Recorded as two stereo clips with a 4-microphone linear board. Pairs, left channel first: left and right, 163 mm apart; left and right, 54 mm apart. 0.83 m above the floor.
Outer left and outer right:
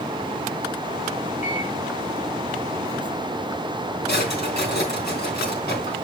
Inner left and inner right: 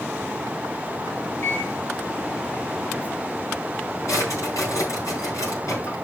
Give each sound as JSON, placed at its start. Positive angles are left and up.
{"t": 1.4, "sound": "a microwave", "side_deg": 50, "distance_m": 4.0}
{"t": 4.1, "sound": "a drawer", "side_deg": 85, "distance_m": 4.0}